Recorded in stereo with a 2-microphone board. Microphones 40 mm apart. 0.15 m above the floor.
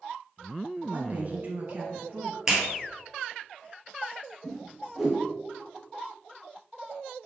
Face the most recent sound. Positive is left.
turn(degrees=0)  # may be behind; listen again after turning